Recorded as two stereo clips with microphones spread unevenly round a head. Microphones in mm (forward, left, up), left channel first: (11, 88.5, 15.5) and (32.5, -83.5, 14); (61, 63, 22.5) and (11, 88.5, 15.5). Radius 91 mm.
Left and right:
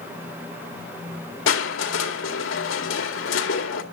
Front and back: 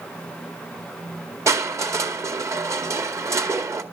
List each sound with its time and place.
1.5 s crushing: 120° left, 2 m